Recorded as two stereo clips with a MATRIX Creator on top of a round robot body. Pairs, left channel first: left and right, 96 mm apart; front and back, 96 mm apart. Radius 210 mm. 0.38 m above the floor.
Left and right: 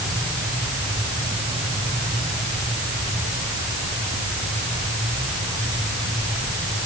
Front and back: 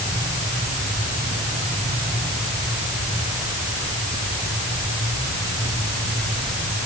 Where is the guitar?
I don't hear a guitar.